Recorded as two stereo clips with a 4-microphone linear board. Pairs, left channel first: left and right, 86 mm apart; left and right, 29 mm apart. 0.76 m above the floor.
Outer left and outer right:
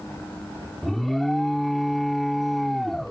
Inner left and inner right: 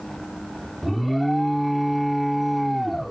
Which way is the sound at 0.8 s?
Centre (ahead or behind).